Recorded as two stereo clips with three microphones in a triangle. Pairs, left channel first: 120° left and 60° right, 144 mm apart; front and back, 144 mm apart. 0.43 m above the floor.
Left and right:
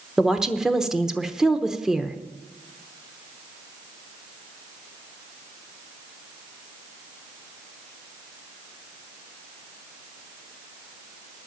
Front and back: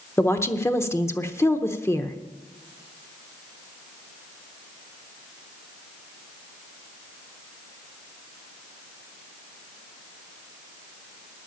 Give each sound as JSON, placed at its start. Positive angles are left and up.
{"t": 0.2, "sound": "a woman speaking", "azimuth_deg": 20, "distance_m": 0.8}